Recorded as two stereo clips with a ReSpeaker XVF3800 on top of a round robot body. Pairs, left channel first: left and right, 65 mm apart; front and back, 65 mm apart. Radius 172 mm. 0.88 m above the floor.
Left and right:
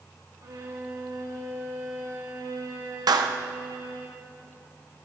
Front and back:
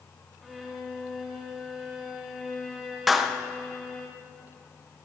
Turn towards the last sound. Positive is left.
turn(degrees=-90)